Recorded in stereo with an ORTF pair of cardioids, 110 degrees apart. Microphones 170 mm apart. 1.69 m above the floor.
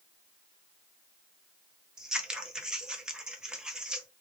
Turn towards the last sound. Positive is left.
turn(degrees=-5)